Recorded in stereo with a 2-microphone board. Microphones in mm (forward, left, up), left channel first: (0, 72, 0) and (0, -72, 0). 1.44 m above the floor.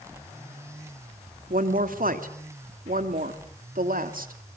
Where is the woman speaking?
70° right (ahead or behind), 2.5 m.